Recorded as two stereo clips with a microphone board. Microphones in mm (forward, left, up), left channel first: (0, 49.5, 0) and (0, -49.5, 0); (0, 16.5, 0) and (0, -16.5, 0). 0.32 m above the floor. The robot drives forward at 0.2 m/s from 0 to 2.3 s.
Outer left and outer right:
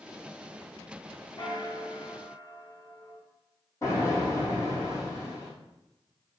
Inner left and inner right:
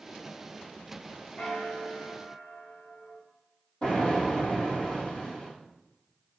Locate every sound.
1.4 s a bell: 50° left (ahead or behind), 0.7 m; by 3.2 s 45° left (ahead or behind), 0.8 m
3.8 s an explosion: 30° left (ahead or behind), 2 m